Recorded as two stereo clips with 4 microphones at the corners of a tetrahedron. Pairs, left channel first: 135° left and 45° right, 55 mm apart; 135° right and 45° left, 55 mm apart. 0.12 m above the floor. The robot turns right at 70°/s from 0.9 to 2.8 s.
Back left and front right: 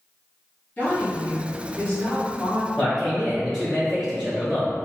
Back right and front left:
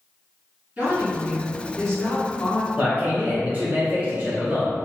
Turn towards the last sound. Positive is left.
turn(degrees=25)